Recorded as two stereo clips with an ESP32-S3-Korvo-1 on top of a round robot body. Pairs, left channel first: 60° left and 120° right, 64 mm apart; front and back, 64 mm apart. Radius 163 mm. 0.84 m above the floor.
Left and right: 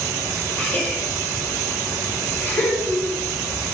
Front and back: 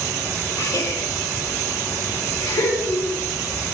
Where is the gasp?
5° right, 5 m.